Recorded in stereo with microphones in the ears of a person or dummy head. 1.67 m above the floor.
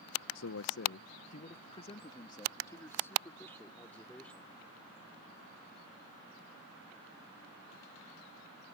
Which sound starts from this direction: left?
A man speaking, at 0.3 s.